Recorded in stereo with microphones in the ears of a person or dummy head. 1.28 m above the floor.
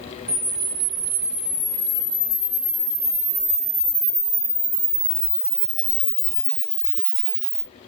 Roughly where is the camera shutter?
Centre.